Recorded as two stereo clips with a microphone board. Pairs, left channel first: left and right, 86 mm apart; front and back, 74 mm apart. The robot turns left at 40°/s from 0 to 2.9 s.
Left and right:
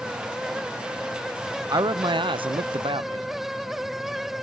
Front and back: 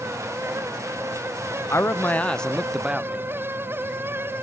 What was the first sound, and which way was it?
A man speaking, 50° right.